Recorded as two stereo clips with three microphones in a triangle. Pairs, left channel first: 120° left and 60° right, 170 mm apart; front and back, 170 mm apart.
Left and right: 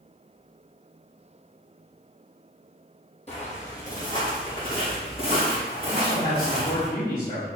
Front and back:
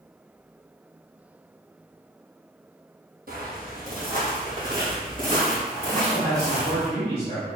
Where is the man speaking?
130° left, 1.6 m.